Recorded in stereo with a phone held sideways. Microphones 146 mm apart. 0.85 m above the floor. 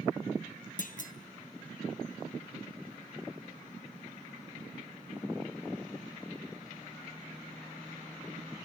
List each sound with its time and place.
0.8 s a clunk: 65° left (ahead or behind), 0.6 m